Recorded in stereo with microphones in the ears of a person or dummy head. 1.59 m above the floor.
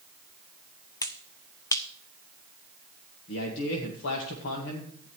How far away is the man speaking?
About 1.6 m.